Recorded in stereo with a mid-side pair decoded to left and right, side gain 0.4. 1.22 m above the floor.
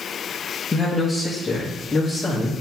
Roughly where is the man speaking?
Ahead.